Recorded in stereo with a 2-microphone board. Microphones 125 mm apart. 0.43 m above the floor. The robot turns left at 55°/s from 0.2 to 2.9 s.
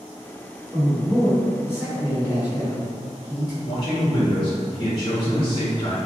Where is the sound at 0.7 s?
165° right, 1.3 m; by 3.5 s 75° left, 1.3 m.